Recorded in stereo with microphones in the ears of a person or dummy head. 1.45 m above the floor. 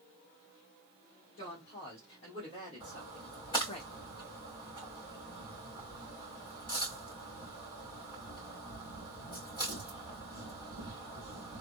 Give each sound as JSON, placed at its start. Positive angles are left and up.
{"t": 1.4, "sound": "a woman speaking", "side_deg": 25, "distance_m": 2.0}
{"t": 2.8, "sound": "a splash", "side_deg": 20, "distance_m": 2.5}